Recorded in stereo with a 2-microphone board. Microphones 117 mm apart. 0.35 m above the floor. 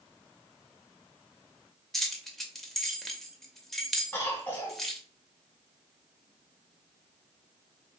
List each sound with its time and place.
1.9 s keys jangling: 5° left (ahead or behind), 0.5 m
4.1 s a cough: 20° left (ahead or behind), 1.2 m